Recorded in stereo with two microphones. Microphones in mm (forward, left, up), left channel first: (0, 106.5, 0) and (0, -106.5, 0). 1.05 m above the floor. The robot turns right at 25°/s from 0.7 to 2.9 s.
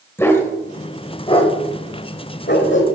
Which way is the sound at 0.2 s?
10° left (ahead or behind).